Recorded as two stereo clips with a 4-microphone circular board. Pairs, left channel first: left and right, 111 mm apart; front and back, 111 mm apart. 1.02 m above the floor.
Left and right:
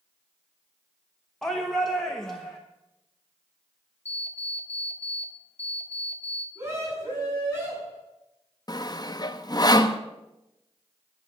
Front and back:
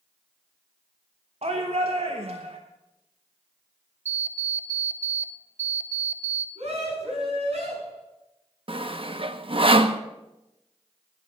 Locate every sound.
1.4 s a shout: 175° left, 1.0 m
4.0 s an alarm clock: 80° left, 1.7 m
6.5 s a scream: 150° right, 8.5 m
8.7 s sawing: 145° left, 0.7 m